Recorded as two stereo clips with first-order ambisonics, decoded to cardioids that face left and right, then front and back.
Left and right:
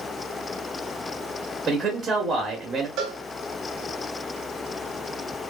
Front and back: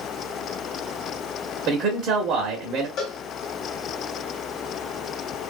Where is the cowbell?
50° right, 0.9 m.